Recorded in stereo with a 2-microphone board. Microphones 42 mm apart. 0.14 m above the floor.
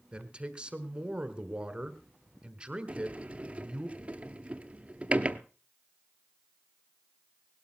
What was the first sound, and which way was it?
A man speaking, 25° right (ahead or behind).